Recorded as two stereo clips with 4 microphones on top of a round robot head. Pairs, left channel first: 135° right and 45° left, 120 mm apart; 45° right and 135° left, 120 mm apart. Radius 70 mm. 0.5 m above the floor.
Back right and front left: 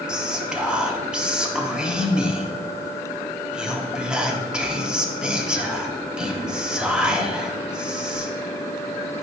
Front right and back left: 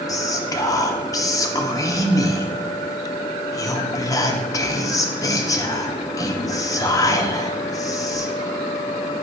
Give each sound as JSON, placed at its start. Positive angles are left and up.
{"t": 0.1, "sound": "whispering", "azimuth_deg": -35, "distance_m": 0.8}